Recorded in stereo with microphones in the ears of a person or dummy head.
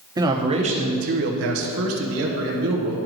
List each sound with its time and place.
0.2 s a man speaking: 20° right (ahead or behind), 1.1 m; by 3.0 s 70° right (ahead or behind), 1.5 m